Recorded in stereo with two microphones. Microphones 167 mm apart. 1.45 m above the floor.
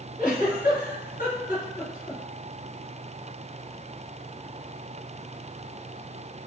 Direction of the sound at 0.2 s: 55° left (ahead or behind).